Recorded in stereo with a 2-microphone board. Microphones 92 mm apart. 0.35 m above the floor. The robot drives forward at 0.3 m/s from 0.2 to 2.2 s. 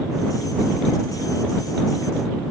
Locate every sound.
Only background noise.